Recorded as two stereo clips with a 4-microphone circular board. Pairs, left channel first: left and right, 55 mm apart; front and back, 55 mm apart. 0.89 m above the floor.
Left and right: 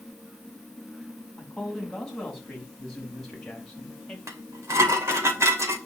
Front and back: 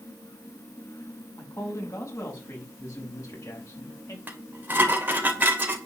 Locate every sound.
1.4 s a man speaking: 5° left, 5.5 m; by 4.2 s 10° left, 4 m
4.3 s dishes clattering: 120° right, 2.5 m